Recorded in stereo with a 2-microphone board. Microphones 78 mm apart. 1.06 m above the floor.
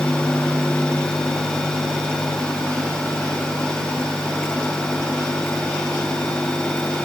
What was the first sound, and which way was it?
Only background noise.